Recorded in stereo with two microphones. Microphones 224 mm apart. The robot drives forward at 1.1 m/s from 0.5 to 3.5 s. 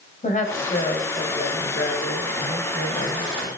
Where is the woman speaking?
35° left (ahead or behind), 2.5 m.